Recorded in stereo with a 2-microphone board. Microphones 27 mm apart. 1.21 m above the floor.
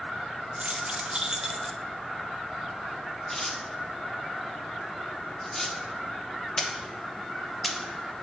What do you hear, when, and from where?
0.6 s keys jangling: 50° right (ahead or behind), 1.0 m; by 1.8 s centre (ahead or behind), 0.7 m
3.3 s tearing paper: 10° left (ahead or behind), 1.1 m